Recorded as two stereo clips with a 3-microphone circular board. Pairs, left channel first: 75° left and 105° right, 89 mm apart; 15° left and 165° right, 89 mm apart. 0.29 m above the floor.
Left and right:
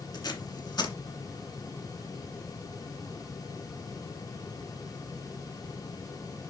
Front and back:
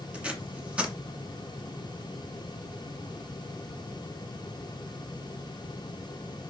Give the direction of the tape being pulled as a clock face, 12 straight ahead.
8 o'clock.